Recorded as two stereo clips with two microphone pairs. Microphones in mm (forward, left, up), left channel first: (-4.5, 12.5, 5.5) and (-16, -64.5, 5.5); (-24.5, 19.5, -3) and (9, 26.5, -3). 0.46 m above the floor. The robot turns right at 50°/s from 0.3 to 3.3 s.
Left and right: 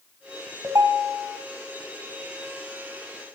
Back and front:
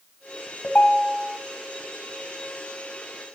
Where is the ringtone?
140° right, 2 m; by 1.4 s 105° right, 2 m.